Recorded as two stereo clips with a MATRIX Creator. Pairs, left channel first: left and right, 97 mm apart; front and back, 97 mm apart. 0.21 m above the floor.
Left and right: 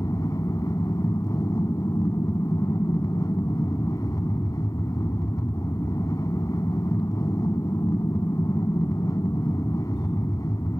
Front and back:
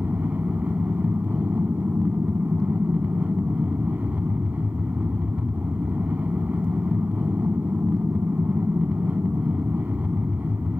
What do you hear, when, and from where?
0.0 s an aircraft: 115° left